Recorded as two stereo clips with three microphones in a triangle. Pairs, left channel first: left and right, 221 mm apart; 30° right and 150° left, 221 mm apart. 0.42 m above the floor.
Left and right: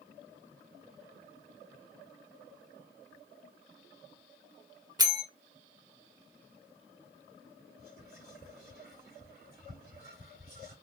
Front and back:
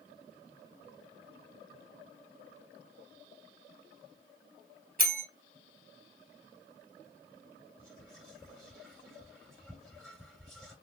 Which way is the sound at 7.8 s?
120° right.